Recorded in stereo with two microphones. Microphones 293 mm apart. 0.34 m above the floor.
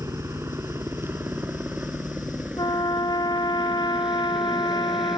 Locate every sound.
0.0 s a helicopter: 10° right (ahead or behind); by 5.2 s centre (ahead or behind)
2.6 s a trumpet: 15° left (ahead or behind)